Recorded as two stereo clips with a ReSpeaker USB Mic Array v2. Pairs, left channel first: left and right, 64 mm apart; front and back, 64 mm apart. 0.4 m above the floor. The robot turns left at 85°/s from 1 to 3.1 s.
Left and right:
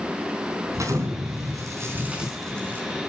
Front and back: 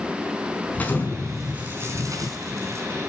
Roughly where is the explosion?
Ahead right.